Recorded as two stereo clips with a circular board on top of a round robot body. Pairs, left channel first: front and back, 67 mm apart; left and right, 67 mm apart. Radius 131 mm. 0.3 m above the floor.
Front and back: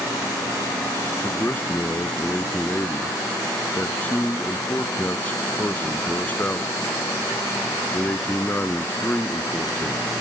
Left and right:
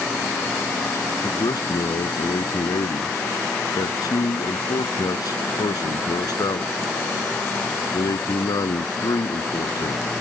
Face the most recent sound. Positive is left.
turn(degrees=70)